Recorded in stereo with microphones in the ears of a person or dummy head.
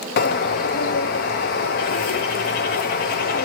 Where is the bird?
45° left (ahead or behind), 0.6 m.